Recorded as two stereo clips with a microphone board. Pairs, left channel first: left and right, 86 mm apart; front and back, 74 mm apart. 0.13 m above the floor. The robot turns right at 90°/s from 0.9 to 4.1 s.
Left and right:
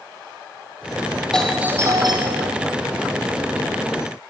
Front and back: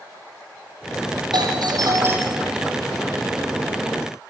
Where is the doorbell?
170° left, 7 m; by 2.5 s 85° right, 7 m.